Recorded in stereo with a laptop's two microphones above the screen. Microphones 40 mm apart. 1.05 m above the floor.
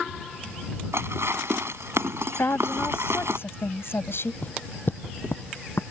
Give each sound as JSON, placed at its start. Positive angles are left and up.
{"t": 0.9, "sound": "dishes clattering", "side_deg": -85}
{"t": 2.4, "sound": "a woman speaking", "side_deg": 70}
{"t": 4.4, "sound": "footsteps", "side_deg": 40}